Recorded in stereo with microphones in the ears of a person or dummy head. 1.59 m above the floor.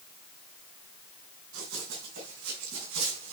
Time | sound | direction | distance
1.5 | running footsteps | 75° right (ahead or behind) | 5.5 m